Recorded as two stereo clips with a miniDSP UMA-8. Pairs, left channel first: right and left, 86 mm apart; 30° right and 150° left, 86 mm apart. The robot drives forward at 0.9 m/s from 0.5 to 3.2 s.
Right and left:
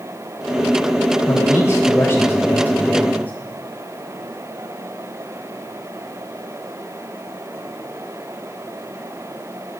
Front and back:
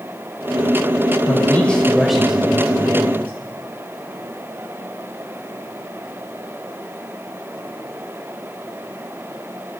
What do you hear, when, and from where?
1.3 s a man speaking: 60° right, 1.2 m; by 3.3 s 155° right, 1.8 m